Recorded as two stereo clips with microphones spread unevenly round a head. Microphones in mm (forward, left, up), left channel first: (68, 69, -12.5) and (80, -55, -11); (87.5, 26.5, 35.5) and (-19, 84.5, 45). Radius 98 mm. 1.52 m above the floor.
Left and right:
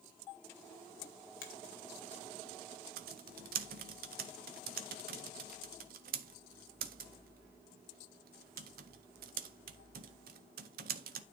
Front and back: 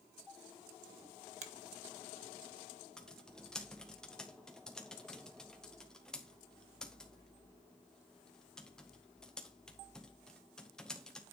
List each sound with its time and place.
1.4 s a finger snap: 130° left, 1.5 m
3.0 s typing on a keyboard: 115° right, 0.6 m